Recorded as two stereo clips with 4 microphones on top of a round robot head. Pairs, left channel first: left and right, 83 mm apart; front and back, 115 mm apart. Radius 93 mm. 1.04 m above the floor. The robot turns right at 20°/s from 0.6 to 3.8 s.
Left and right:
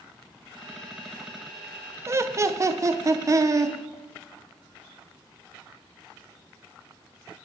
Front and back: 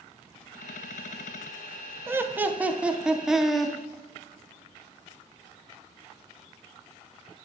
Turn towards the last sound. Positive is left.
turn(degrees=-85)